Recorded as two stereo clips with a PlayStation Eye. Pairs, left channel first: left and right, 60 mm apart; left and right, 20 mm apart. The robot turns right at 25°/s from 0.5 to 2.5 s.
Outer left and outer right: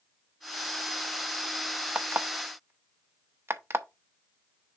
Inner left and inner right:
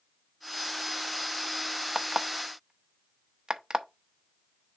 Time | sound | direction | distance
1.9 | an alarm clock | 30° right (ahead or behind) | 0.8 m